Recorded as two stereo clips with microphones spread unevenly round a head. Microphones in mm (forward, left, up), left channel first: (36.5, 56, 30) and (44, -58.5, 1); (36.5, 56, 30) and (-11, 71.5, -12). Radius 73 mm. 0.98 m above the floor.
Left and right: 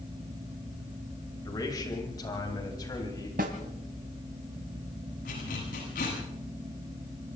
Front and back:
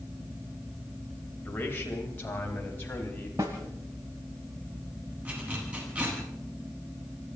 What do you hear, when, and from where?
1.4 s a man speaking: 35° left, 5.5 m
3.4 s a snare drum: 120° right, 2.5 m
5.2 s a zipper: 105° left, 8.5 m